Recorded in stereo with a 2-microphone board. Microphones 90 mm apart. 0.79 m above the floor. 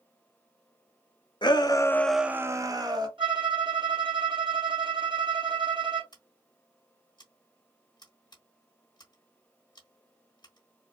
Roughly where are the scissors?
Left.